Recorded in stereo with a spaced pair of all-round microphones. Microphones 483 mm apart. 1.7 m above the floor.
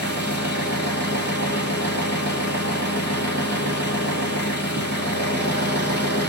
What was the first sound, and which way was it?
An engine running, 20° left (ahead or behind).